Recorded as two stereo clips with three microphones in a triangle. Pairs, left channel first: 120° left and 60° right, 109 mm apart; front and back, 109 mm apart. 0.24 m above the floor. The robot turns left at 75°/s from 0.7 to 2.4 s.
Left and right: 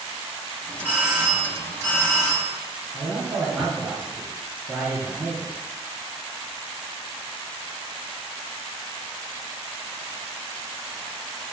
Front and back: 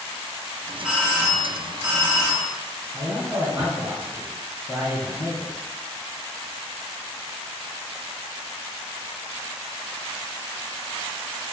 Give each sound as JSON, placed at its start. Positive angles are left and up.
{"t": 0.8, "sound": "a doorbell", "azimuth_deg": -100, "distance_m": 2.0}
{"t": 2.9, "sound": "a man speaking", "azimuth_deg": -120, "distance_m": 1.0}